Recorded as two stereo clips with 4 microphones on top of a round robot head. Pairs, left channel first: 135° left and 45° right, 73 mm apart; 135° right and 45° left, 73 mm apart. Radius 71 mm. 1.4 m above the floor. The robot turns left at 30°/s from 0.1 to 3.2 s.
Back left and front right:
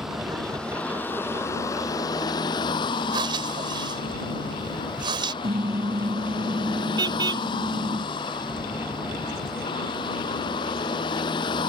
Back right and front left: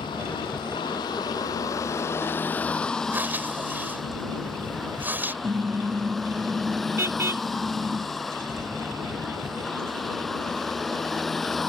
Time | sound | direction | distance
0.0 | a vehicle | 130° right | ?
3.1 | breathing | 20° right | ?
5.4 | a car horn | 15° right | ?